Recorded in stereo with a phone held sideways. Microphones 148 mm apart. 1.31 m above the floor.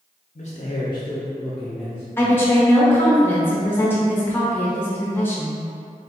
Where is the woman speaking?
15° left (ahead or behind), 1.0 m.